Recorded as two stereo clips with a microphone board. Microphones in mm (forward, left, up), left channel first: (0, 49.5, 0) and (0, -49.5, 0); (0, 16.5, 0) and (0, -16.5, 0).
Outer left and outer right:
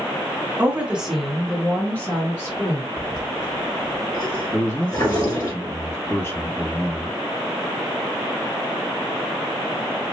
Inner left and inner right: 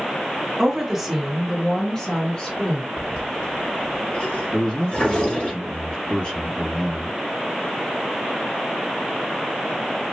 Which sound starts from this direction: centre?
A woman speaking, at 0.6 s.